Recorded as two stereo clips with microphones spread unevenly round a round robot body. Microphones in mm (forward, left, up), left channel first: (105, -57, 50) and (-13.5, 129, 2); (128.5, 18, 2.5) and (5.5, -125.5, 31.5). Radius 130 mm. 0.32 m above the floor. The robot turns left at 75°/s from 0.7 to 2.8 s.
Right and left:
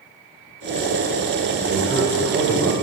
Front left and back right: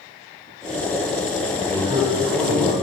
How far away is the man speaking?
About 1.5 m.